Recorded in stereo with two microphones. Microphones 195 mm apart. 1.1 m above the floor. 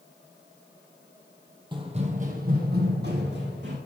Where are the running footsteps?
25° right (ahead or behind), 1.3 m; by 3.8 s 65° right (ahead or behind), 2.5 m.